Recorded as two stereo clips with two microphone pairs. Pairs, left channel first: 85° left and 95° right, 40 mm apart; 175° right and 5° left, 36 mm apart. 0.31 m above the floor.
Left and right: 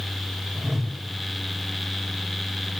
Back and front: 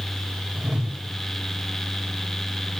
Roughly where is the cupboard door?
No cupboard door in this recording.